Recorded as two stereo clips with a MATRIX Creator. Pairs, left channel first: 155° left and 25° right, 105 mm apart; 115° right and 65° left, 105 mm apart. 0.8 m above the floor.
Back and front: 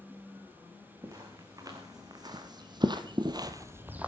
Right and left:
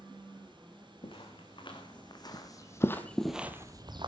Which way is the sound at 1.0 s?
80° right.